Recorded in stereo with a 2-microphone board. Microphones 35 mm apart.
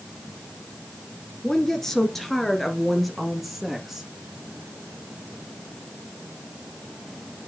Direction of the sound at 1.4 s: 15° left (ahead or behind).